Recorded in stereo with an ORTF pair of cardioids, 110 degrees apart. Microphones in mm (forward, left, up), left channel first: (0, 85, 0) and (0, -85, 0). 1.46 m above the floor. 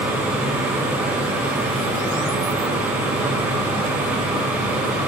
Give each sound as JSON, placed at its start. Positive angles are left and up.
{"t": 0.0, "sound": "a fan", "azimuth_deg": -10, "distance_m": 4.0}